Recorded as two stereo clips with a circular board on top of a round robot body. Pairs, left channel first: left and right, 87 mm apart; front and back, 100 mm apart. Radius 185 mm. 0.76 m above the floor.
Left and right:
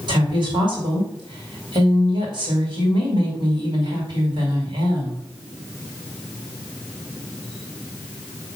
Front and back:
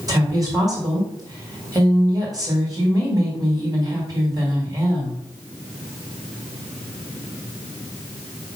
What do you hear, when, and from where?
0.1 s a woman speaking: 125° right, 4.5 m